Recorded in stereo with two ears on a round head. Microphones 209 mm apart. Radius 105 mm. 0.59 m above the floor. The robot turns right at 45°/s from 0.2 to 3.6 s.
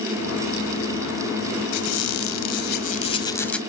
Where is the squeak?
95° left, 1.5 m; by 3.6 s 175° left, 1.5 m.